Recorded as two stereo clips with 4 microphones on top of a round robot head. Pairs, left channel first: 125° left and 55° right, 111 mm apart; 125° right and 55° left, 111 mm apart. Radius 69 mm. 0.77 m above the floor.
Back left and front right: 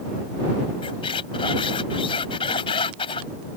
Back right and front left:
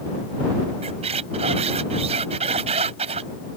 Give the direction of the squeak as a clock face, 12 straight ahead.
9 o'clock.